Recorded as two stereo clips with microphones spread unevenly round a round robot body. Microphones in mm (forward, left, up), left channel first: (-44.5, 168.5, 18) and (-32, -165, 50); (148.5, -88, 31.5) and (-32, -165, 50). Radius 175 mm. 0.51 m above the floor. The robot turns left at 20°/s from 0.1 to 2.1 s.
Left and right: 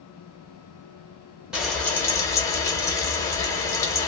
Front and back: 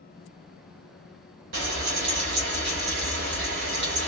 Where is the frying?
Straight behind, 1.2 m; by 4.1 s 170° left, 1.2 m.